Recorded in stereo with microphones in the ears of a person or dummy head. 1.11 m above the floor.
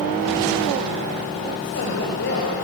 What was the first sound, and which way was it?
A woman speaking, 60° left (ahead or behind).